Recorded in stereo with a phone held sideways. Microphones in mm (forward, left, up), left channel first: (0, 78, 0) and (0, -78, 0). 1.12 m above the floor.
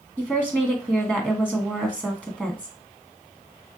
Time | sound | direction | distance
0.2 | a woman speaking | 5° right (ahead or behind) | 1.1 m